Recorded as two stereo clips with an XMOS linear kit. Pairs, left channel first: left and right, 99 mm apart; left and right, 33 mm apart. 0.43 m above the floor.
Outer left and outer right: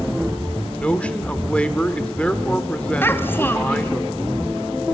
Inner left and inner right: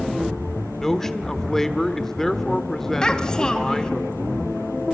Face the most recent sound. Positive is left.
turn(degrees=20)  # may be behind; listen again after turning